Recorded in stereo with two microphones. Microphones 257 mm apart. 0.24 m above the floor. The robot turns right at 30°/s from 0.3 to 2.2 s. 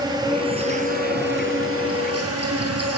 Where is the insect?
165° right, 4.5 m; by 3.0 s 105° right, 4.5 m.